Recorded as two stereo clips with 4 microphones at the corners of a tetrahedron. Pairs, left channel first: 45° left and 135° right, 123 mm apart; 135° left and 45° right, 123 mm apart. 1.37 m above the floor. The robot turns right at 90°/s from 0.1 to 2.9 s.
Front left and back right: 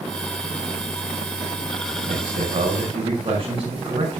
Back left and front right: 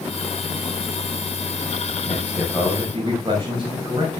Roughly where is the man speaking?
Behind.